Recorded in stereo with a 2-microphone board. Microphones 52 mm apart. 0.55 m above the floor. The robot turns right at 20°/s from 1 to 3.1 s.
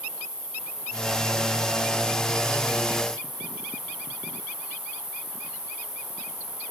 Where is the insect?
105° left, 7.5 m; by 6.7 s 150° left, 7.5 m.